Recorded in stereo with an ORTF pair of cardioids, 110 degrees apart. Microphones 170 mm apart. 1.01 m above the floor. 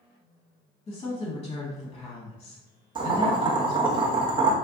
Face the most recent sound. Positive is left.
turn(degrees=-30)